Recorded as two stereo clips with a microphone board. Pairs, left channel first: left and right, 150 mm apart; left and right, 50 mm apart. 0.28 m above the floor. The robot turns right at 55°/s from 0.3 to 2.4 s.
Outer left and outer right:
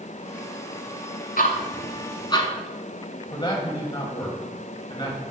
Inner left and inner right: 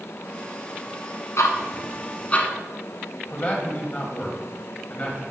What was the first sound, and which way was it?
Ticking, 75° left (ahead or behind).